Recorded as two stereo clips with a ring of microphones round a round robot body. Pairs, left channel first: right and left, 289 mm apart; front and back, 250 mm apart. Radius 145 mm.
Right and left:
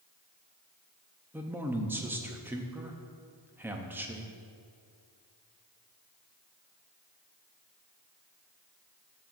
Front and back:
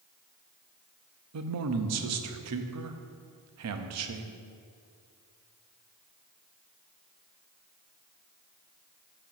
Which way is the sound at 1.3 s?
175° left.